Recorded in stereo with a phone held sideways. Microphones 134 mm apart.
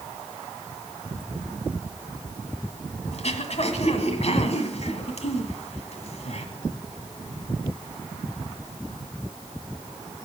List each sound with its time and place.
3.1 s throat clearing: 55° left (ahead or behind), 1.7 m